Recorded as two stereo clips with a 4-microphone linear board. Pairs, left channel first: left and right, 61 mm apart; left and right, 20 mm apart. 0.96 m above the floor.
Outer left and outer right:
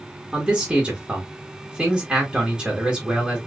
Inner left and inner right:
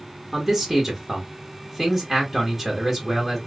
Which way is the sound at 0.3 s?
10° right (ahead or behind).